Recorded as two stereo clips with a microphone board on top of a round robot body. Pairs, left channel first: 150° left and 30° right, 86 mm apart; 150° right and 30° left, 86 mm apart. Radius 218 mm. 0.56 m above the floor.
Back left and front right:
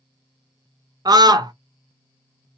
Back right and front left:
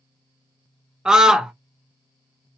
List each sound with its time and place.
1.1 s a scream: 50° right, 1.0 m